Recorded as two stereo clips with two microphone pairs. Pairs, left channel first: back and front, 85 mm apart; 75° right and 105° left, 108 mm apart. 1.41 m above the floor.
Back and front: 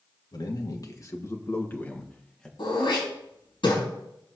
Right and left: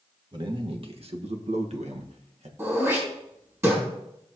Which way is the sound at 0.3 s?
145° left.